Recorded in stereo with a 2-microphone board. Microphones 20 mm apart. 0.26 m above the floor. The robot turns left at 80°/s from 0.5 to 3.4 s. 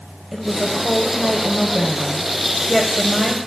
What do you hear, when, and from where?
0.3 s a woman speaking: 20° right (ahead or behind), 1.0 m; by 3.4 s 10° left (ahead or behind), 1.0 m